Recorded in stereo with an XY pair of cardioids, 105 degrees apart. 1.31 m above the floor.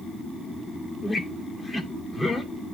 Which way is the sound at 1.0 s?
20° left.